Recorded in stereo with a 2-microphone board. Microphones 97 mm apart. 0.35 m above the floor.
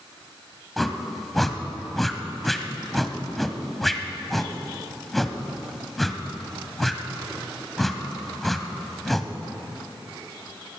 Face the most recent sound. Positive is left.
turn(degrees=0)  # may be behind; listen again after turning